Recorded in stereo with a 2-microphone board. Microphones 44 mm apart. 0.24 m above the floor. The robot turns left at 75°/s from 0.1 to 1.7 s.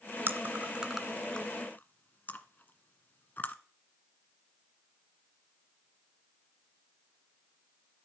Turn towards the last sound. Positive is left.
turn(degrees=45)  # may be behind; listen again after turning